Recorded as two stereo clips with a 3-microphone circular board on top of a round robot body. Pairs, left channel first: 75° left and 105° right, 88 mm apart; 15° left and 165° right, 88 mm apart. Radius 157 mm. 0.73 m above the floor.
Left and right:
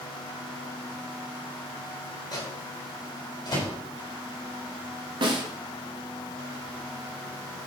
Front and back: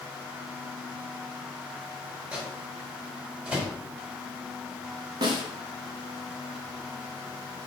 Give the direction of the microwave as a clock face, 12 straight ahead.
8 o'clock.